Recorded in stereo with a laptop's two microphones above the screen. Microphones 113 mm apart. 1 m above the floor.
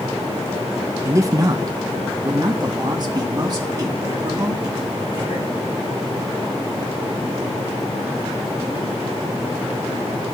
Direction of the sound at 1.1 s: 25° right (ahead or behind).